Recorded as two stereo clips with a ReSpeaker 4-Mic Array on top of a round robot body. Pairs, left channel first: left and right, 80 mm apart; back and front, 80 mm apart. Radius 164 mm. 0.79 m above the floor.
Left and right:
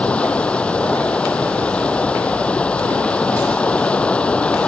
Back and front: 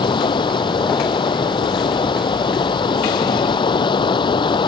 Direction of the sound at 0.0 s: 165° left.